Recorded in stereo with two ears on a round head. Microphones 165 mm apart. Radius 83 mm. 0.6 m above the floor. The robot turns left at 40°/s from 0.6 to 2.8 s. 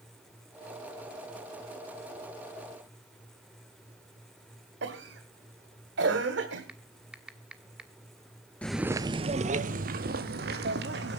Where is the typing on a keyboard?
5° right (ahead or behind), 1.3 m.